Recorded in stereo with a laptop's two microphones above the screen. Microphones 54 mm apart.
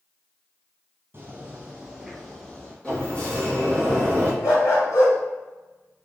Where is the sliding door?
20° left (ahead or behind), 1.1 m.